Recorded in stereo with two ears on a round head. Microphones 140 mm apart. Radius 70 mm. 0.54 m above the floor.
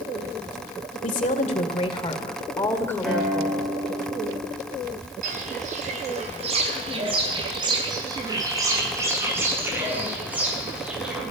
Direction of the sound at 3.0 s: Centre (ahead or behind).